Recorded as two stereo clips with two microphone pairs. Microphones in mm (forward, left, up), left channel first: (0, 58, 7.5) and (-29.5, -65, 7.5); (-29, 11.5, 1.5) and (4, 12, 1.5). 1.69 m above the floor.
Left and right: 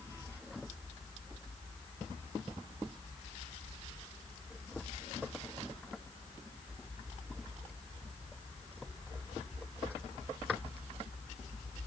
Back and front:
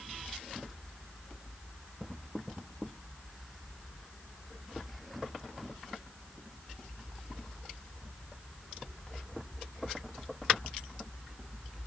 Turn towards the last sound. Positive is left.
No sound to turn to.